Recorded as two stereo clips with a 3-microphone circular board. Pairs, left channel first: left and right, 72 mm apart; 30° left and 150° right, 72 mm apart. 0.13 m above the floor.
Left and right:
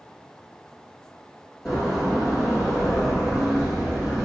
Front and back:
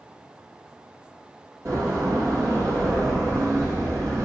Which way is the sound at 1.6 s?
175° right.